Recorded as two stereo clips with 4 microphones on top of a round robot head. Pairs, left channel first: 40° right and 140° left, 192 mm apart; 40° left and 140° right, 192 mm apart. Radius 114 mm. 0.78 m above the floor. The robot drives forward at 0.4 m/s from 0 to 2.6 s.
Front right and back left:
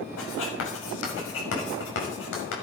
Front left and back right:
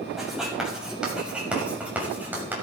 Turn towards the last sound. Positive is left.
turn(degrees=-60)